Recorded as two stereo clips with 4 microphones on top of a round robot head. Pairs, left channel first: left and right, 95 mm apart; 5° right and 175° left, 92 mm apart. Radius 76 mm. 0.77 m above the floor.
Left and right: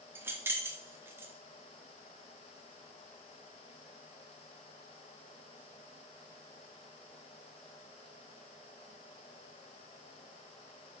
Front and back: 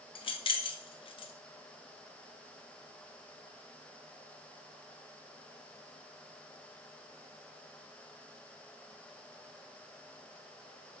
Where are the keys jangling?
25° right, 0.9 m.